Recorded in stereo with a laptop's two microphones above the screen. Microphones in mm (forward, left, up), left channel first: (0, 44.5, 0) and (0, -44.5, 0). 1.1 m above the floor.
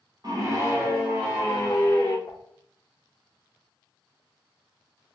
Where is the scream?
45° right (ahead or behind), 0.8 m; by 2.2 s 20° left (ahead or behind), 0.9 m.